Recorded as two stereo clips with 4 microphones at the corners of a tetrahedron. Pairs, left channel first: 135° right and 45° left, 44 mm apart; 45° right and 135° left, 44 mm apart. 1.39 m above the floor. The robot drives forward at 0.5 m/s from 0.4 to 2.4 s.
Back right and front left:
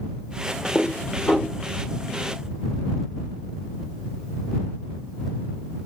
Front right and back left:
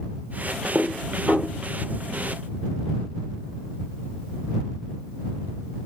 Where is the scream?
I don't hear a scream.